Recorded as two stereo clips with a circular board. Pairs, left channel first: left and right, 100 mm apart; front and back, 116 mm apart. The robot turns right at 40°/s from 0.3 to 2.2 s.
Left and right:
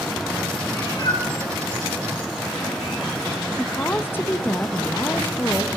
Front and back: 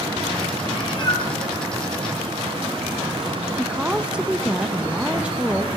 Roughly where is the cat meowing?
Ahead left.